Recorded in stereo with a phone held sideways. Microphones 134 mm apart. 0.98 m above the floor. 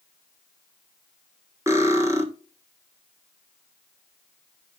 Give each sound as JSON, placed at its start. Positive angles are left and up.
{"t": 1.7, "sound": "cutlery clinking", "side_deg": -20, "distance_m": 1.4}